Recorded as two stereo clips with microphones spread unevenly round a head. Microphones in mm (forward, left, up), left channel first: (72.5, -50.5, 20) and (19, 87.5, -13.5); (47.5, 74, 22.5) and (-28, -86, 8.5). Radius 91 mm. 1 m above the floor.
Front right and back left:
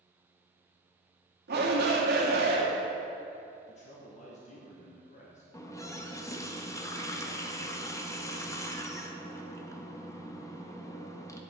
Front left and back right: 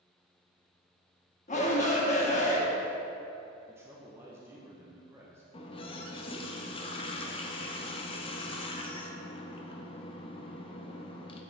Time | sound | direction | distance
1.5 | a shout | 120° left | 1.5 m
3.7 | a man speaking | 55° right | 0.9 m
5.5 | a running tap | 5° left | 0.8 m